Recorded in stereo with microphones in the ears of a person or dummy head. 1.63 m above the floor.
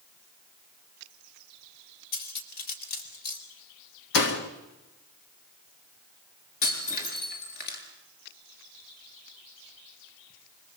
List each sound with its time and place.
2.1 s cutlery clinking: 55° left (ahead or behind), 4 m
4.1 s a door slam: 60° left (ahead or behind), 1.9 m
6.6 s breaking glass: 55° left (ahead or behind), 6.5 m